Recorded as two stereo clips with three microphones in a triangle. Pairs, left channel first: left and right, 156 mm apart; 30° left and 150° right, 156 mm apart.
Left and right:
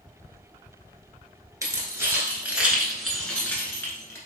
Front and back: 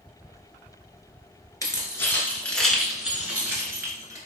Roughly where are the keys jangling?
Ahead right.